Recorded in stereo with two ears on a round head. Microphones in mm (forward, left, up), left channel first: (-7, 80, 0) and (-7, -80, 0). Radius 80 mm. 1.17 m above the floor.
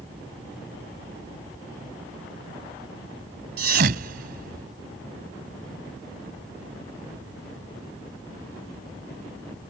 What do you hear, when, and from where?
3.6 s a thud: 60° right (ahead or behind)